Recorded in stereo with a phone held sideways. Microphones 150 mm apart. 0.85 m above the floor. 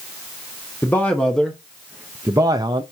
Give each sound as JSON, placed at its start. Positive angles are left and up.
{"t": 0.8, "sound": "a man speaking", "side_deg": 10, "distance_m": 1.1}